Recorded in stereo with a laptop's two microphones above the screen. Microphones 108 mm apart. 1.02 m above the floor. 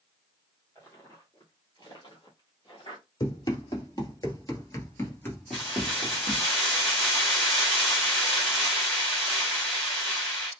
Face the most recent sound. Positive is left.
turn(degrees=0)  # may be behind; listen again after turning